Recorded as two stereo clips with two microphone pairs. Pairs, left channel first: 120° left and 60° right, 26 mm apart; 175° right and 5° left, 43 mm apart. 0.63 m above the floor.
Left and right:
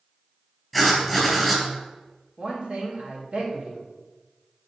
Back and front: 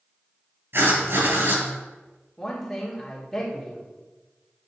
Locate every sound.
0.7 s writing: 25° left, 3 m
2.4 s a man speaking: 95° right, 2 m